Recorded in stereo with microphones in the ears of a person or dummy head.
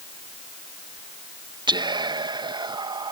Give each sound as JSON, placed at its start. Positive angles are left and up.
{"t": 1.7, "sound": "whispering", "side_deg": -20}